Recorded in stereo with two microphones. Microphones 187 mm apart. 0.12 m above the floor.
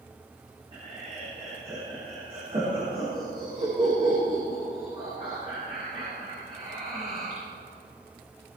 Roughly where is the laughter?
Right.